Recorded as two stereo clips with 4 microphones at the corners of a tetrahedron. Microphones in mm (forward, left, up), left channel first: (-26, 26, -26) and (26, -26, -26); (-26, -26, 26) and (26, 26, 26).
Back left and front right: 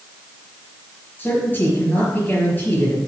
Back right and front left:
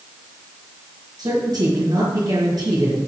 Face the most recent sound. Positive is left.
turn(degrees=70)